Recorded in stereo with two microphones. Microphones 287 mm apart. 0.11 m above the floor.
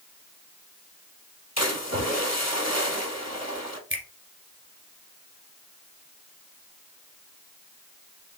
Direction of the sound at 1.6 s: 65° left (ahead or behind).